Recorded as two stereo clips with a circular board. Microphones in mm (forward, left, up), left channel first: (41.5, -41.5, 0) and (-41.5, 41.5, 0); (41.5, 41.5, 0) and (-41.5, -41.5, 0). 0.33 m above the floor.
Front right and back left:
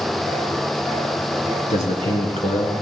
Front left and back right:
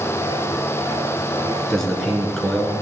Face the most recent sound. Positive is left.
turn(degrees=-40)